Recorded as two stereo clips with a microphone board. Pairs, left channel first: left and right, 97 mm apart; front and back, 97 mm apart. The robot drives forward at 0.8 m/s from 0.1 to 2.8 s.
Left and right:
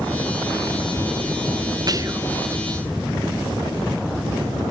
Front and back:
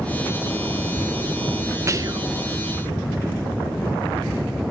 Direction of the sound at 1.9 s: 125° right.